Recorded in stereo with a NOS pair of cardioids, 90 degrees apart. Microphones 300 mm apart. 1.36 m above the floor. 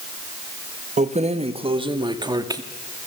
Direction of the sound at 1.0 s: 25° right.